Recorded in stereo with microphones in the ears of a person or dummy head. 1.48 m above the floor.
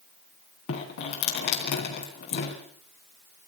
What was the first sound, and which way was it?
Dripping, 60° left (ahead or behind).